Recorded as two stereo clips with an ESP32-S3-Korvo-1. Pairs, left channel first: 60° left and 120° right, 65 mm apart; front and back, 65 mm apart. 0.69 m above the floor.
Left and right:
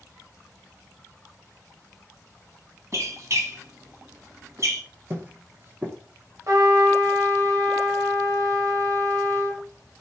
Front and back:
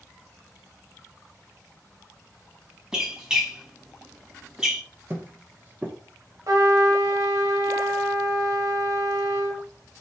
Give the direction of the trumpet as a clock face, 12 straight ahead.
5 o'clock.